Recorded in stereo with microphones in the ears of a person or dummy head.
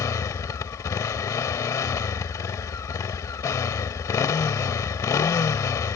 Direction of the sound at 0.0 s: 15° left (ahead or behind).